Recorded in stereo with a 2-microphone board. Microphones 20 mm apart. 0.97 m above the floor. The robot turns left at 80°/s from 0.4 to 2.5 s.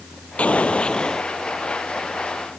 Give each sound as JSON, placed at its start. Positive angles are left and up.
{"t": 0.4, "sound": "an explosion", "azimuth_deg": 90}